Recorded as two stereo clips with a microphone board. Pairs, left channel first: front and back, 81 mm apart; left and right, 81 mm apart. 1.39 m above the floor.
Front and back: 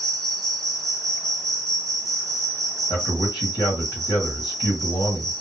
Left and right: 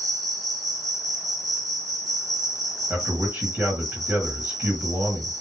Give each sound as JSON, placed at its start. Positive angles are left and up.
{"t": 0.0, "sound": "an insect", "azimuth_deg": -90, "distance_m": 1.7}
{"t": 2.9, "sound": "a man speaking", "azimuth_deg": -20, "distance_m": 1.5}